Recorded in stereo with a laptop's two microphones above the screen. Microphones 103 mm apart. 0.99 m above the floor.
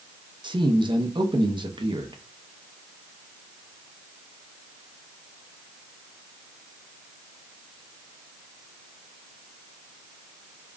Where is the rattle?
I don't hear a rattle.